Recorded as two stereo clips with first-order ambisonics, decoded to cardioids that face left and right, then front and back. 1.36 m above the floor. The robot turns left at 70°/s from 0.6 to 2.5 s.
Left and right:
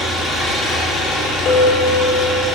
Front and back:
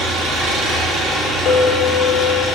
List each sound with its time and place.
0.0 s an engine running: 160° left, 3 m; by 2.6 s 30° left, 3 m
1.4 s a clink: 50° left, 2.5 m; by 2.5 s 20° right, 2.5 m